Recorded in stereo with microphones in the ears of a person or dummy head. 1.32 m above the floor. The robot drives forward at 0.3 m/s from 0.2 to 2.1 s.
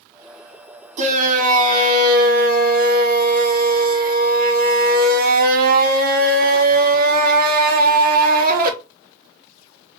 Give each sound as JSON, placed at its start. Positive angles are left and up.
{"t": 1.0, "sound": "a shout", "side_deg": -40, "distance_m": 1.5}